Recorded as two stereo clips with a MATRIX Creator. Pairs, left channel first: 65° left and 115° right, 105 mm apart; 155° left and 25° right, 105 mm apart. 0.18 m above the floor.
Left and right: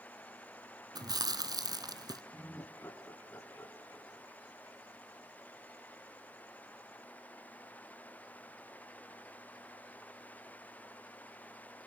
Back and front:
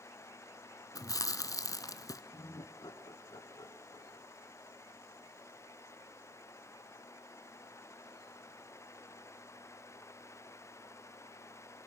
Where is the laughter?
130° left, 2.5 m.